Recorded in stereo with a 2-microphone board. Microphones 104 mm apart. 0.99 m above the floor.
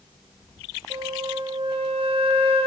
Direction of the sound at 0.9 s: 65° right (ahead or behind).